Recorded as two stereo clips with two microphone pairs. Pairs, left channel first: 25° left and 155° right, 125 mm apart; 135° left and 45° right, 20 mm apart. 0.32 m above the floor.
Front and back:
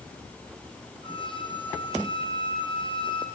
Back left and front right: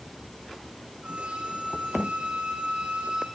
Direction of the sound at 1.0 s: 20° right.